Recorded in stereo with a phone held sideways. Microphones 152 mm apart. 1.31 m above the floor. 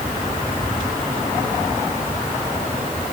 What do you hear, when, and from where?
Only background noise.